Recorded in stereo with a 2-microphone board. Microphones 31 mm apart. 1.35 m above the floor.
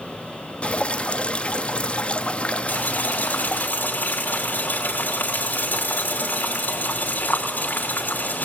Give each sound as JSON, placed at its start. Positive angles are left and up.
{"t": 0.6, "sound": "dripping", "side_deg": 40, "distance_m": 0.9}
{"t": 2.7, "sound": "boiling", "side_deg": 75, "distance_m": 3.0}